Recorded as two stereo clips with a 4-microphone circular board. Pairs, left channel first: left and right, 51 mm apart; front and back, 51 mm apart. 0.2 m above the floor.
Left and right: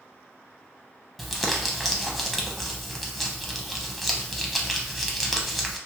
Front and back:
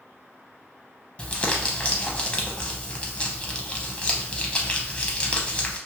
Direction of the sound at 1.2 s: 5° right.